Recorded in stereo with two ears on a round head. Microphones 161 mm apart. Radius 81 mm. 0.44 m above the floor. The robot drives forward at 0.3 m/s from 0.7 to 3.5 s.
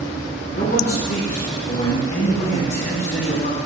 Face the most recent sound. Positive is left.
turn(degrees=45)  # may be behind; listen again after turning